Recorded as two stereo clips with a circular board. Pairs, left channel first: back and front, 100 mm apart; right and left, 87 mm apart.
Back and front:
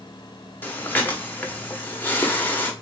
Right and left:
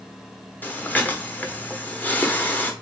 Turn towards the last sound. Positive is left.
turn(degrees=-130)